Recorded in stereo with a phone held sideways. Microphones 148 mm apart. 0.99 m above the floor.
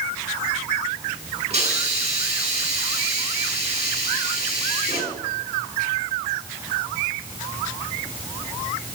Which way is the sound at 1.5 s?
50° right (ahead or behind).